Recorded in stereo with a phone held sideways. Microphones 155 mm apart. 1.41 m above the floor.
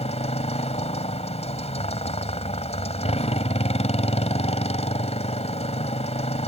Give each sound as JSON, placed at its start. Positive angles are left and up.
{"t": 0.0, "sound": "a motorcycle", "side_deg": 45}